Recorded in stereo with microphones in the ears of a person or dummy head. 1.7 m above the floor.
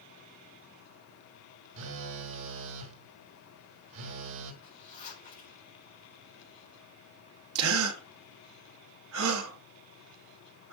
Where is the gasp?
80° right, 2 m.